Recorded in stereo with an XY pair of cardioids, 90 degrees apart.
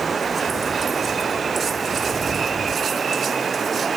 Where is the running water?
35° right.